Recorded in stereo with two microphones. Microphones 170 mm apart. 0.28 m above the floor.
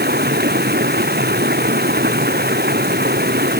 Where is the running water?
70° right (ahead or behind).